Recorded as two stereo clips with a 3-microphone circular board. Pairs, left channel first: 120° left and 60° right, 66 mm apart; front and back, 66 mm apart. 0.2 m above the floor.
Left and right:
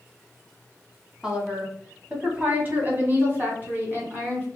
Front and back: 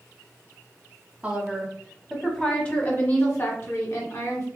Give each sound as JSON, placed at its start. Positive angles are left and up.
{"t": 1.2, "sound": "a woman speaking", "azimuth_deg": -125, "distance_m": 1.4}